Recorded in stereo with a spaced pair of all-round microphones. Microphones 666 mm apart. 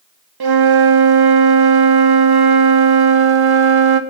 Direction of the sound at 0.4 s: 40° right (ahead or behind).